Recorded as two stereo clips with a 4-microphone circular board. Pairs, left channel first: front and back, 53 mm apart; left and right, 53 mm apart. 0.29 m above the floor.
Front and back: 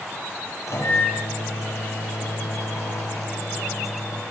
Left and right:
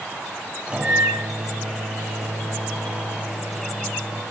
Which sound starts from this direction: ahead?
A microwave, at 0.7 s.